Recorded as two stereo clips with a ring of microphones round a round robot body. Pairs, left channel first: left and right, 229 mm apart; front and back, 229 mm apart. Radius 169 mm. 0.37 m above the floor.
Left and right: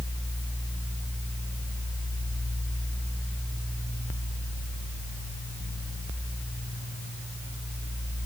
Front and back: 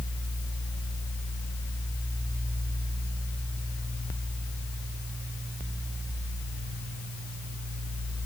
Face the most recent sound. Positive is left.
No sound to turn to.